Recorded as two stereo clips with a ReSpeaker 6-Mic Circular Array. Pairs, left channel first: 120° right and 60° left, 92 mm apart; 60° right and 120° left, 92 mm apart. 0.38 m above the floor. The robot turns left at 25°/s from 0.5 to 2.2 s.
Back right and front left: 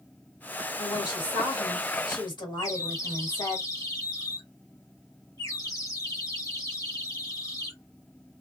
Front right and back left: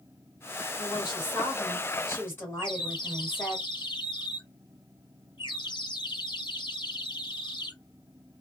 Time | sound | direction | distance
0.8 | a woman speaking | 80° right | 1.8 m
2.6 | a bird | 75° right | 0.8 m